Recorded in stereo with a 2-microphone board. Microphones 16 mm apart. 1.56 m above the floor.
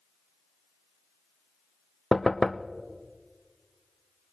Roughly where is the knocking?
Left.